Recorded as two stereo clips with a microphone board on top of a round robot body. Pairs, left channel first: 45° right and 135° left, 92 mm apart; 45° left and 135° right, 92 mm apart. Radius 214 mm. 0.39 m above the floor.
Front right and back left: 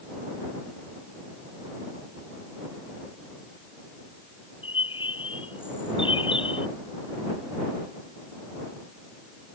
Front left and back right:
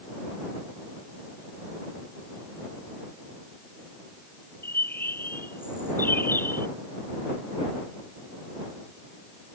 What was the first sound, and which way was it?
A bird, 25° right.